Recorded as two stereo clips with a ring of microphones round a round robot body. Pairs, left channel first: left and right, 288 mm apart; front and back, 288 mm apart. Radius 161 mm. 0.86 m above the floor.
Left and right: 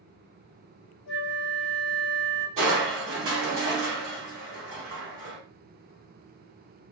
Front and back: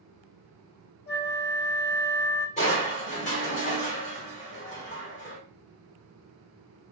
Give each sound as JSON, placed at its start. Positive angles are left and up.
{"t": 1.1, "sound": "a flute", "azimuth_deg": 55, "distance_m": 0.6}
{"t": 2.6, "sound": "crushing", "azimuth_deg": -60, "distance_m": 1.4}